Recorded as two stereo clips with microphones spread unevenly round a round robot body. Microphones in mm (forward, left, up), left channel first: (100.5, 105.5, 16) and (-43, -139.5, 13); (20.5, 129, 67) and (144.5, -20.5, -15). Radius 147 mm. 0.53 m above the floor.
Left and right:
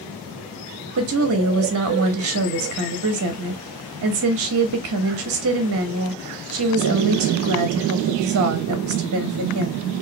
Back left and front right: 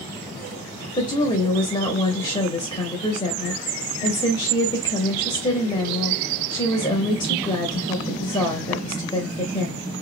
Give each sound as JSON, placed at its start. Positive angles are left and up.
{"t": 1.0, "sound": "a woman speaking", "azimuth_deg": -140, "distance_m": 1.0}